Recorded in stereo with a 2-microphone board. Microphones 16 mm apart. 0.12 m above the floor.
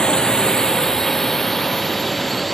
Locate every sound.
0.0 s a drone: 60° left (ahead or behind); by 2.5 s 15° left (ahead or behind)